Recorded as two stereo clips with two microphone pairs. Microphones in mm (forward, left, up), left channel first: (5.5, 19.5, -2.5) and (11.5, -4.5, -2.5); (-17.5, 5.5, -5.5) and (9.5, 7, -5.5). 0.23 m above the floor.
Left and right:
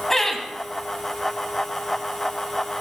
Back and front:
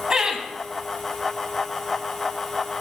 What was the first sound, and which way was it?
Laughter, 45° left.